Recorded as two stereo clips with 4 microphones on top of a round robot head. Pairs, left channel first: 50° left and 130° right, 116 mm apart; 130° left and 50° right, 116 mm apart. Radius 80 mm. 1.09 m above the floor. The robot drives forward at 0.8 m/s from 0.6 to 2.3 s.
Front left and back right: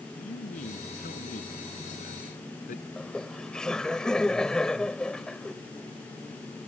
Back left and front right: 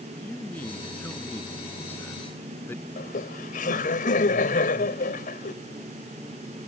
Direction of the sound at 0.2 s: 55° left.